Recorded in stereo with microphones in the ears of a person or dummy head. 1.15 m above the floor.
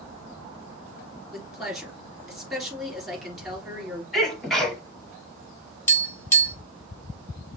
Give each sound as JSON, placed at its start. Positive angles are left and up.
{"t": 1.3, "sound": "a woman speaking", "side_deg": 0, "distance_m": 3.0}
{"t": 4.1, "sound": "a sneeze", "side_deg": 0, "distance_m": 2.5}
{"t": 5.9, "sound": "tapping", "side_deg": 15, "distance_m": 1.9}